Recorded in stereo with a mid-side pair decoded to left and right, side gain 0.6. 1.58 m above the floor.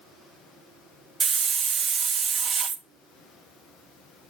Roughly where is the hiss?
Ahead right.